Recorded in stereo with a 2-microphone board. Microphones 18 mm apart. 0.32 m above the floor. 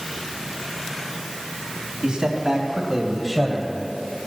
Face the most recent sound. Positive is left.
turn(degrees=15)  # may be behind; listen again after turning